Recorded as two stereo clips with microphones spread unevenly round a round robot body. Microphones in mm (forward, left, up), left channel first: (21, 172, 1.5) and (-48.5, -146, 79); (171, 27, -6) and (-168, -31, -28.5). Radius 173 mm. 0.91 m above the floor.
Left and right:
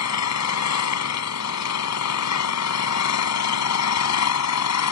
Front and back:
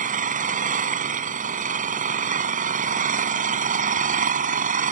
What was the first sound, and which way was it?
An engine running, 120° left.